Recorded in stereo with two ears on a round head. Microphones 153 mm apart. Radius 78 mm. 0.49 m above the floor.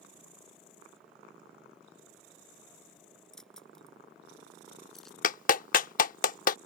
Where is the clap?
50° left (ahead or behind).